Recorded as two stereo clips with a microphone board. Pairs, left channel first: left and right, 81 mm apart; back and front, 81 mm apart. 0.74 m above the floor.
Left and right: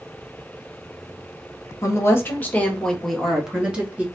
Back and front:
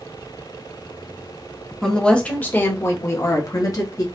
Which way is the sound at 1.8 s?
100° left.